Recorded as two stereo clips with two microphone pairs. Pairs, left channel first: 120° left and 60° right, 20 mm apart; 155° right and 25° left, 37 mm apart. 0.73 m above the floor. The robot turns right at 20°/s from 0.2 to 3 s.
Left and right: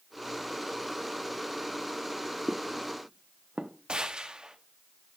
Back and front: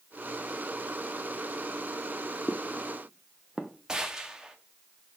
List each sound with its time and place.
2.5 s footsteps: 150° right, 1.2 m; by 3.7 s 50° right, 1.8 m
3.9 s a gunshot: 45° right, 1.4 m